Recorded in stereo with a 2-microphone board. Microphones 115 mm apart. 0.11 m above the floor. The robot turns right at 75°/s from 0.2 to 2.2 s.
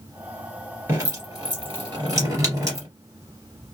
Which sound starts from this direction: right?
Dripping, at 0.9 s.